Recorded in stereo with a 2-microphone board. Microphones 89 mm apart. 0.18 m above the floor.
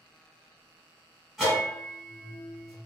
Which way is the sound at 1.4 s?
Centre (ahead or behind).